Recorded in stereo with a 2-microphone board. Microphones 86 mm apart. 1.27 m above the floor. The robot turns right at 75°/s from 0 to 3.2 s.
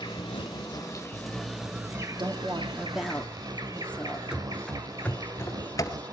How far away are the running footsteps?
About 1.2 m.